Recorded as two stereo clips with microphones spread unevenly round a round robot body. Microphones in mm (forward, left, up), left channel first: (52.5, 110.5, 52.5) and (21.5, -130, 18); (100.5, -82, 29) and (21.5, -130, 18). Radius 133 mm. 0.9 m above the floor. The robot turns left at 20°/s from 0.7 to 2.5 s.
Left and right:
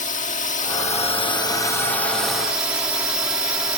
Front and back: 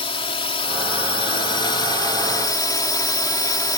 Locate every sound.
0.0 s a drone: 20° left; by 3.8 s 15° right